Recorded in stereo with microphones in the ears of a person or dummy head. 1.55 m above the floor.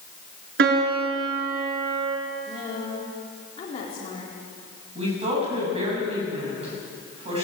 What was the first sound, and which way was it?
A piano, 60° right (ahead or behind).